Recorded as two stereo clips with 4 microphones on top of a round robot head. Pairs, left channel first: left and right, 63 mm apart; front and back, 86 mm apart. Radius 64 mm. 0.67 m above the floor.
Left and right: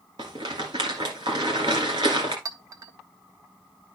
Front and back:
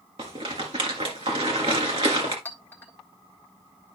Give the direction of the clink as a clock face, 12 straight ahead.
2 o'clock.